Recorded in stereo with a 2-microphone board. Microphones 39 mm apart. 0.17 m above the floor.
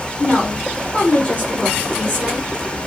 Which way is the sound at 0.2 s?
20° left (ahead or behind).